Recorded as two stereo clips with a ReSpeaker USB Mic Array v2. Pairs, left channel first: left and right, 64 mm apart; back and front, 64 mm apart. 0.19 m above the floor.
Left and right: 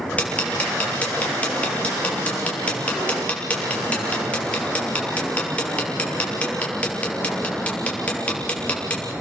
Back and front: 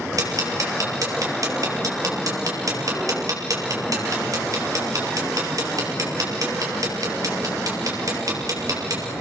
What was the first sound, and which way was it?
Ticking, 20° left.